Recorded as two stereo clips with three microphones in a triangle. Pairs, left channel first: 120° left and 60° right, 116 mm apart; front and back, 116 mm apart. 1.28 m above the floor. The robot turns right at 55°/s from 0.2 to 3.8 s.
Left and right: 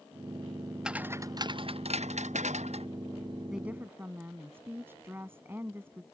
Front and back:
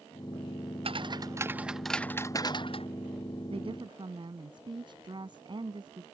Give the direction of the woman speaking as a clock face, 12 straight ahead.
5 o'clock.